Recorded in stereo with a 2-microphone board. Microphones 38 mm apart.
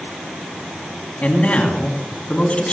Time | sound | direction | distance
1.2 | a man speaking | 35° left (ahead or behind) | 2.5 m